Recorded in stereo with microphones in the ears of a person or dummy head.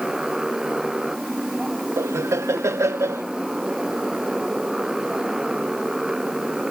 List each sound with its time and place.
0.0 s a motorcycle: centre (ahead or behind)
2.0 s laughter: 15° right (ahead or behind)